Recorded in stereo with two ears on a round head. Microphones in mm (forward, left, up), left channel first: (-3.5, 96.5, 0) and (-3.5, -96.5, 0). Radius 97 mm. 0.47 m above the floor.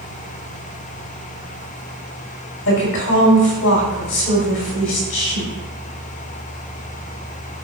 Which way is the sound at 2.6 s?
65° left (ahead or behind).